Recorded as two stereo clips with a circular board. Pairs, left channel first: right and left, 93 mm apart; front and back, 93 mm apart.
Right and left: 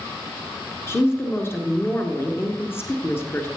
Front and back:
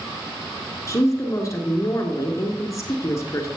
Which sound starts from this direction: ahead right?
A woman speaking, at 0.9 s.